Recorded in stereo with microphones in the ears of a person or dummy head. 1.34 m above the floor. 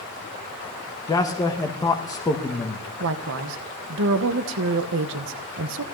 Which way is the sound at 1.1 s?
15° left (ahead or behind).